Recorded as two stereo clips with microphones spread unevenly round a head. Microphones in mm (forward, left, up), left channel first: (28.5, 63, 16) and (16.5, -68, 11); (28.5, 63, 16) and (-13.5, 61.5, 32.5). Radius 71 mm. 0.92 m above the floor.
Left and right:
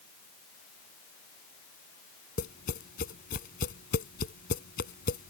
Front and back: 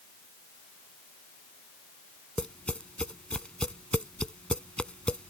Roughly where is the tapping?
Left.